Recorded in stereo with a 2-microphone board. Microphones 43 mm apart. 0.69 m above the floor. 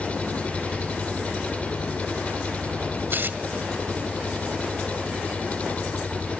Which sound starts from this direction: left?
An engine running, at 0.0 s.